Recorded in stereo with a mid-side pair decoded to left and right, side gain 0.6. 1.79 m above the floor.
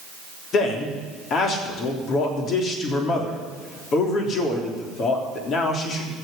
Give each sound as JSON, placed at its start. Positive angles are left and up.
{"t": 0.5, "sound": "a man speaking", "azimuth_deg": 50, "distance_m": 3.5}